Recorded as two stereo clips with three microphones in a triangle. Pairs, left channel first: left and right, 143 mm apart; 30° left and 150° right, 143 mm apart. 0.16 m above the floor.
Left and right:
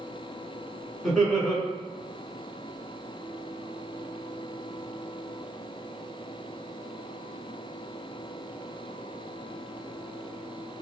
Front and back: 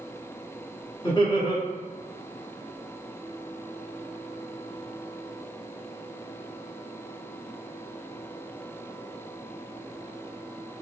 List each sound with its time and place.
1.0 s laughter: 5° left, 1.4 m